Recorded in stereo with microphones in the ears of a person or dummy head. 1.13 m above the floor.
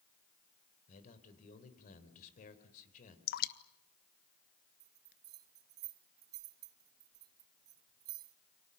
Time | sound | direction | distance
0.9 | a man speaking | 40° left (ahead or behind) | 4.5 m
3.3 | dripping | 50° left (ahead or behind) | 1.3 m
4.8 | a bell | 20° right (ahead or behind) | 0.8 m